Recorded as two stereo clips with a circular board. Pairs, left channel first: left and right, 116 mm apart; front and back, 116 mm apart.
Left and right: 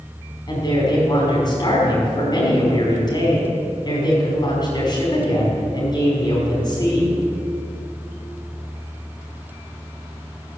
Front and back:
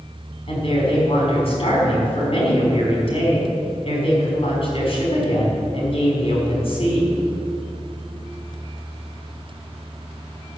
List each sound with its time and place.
0.5 s a woman speaking: 35° left, 5.5 m